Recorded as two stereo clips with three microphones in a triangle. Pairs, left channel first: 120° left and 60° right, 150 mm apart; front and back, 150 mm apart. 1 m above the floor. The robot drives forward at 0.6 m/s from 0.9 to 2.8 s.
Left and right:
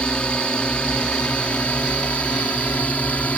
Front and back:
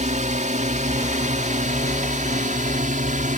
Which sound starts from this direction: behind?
A drone, at 0.0 s.